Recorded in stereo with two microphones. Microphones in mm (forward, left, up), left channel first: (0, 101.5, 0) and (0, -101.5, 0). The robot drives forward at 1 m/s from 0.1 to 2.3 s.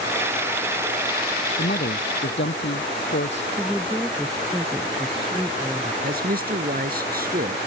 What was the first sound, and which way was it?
A man speaking, 55° left (ahead or behind).